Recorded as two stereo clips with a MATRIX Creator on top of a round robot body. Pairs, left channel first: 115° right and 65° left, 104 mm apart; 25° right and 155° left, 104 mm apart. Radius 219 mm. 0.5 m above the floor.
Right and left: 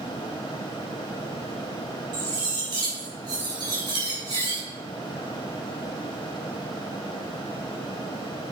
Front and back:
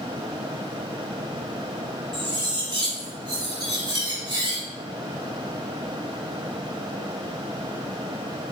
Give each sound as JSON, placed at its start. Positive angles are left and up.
{"t": 2.1, "sound": "cutlery clinking", "azimuth_deg": 115, "distance_m": 4.5}